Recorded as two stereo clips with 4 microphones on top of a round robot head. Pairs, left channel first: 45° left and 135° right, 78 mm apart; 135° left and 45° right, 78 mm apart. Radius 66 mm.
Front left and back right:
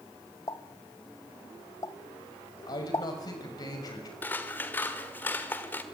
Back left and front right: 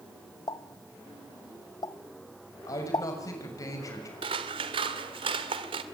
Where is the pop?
95° left, 1.1 m.